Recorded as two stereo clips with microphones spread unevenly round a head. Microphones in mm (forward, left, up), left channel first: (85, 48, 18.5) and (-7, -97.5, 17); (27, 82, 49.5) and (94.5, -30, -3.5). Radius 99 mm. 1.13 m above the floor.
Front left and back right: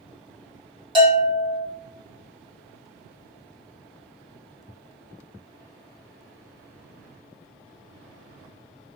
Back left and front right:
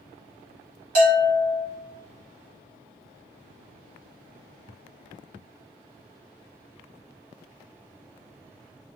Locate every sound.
0.9 s a bell: 60° right, 1.5 m